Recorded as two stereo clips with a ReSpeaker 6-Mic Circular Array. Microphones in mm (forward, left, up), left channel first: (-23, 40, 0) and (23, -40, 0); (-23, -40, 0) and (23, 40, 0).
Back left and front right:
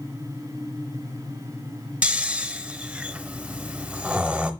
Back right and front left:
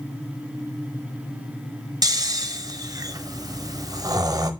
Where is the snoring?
15° left, 0.8 m.